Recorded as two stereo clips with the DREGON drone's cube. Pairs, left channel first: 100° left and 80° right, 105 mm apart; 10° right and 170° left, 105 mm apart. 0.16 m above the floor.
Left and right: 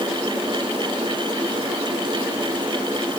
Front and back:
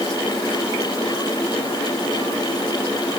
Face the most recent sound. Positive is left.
No sound to turn to.